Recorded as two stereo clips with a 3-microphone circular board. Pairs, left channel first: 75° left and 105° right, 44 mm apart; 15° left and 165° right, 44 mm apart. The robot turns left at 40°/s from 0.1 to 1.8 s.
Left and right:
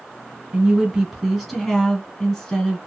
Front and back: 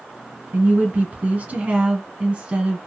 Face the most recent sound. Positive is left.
turn(degrees=155)